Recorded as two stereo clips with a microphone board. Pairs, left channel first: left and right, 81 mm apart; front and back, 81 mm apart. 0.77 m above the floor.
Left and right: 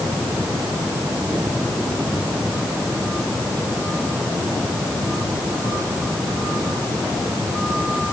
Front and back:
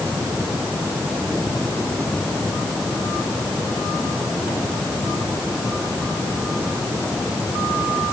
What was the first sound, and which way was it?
Only background noise.